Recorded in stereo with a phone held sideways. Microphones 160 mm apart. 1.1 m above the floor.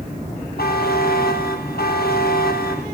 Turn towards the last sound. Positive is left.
turn(degrees=70)  # may be behind; listen again after turning